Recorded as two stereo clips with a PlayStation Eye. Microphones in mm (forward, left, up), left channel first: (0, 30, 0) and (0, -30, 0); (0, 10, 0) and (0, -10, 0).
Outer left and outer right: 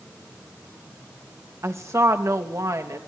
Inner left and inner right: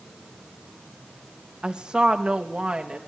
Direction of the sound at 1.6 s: 50° right (ahead or behind).